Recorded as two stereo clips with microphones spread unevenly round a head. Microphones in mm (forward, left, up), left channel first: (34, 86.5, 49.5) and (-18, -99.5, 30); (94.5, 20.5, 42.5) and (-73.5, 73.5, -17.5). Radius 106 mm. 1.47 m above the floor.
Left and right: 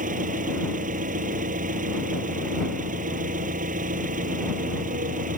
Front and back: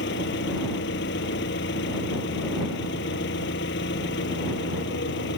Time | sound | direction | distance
0.0 | an engine running | 55° right | ?